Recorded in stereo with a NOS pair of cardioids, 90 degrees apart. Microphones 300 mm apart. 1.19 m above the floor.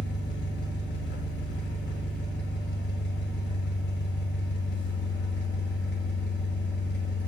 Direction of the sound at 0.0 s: 40° left.